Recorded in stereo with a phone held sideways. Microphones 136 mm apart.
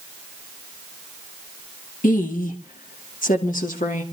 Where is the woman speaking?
85° left, 2 m; by 4.0 s 75° left (ahead or behind), 3 m.